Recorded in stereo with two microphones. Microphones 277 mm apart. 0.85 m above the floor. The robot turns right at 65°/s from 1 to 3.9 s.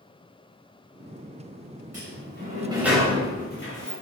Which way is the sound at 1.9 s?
65° right (ahead or behind).